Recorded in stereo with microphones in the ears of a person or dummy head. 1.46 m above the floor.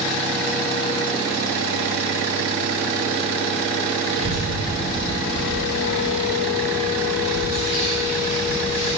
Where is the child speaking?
40° right (ahead or behind), 1.9 m; by 8.9 s 40° left (ahead or behind), 4 m.